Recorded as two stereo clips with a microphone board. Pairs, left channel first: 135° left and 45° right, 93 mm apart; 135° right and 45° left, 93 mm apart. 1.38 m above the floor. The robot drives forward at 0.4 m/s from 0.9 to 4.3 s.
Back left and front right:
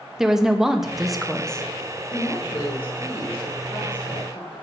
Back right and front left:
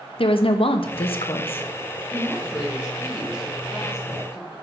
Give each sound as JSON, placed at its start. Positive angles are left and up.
{"t": 0.2, "sound": "a woman speaking", "azimuth_deg": -130, "distance_m": 0.9}
{"t": 2.1, "sound": "a woman speaking", "azimuth_deg": 150, "distance_m": 5.5}